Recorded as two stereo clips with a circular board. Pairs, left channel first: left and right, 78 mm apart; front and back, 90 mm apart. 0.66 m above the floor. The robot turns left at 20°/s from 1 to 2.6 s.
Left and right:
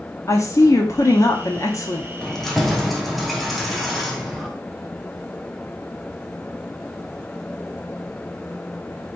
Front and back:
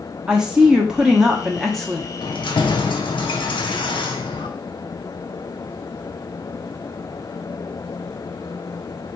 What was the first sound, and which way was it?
A woman speaking, 100° left.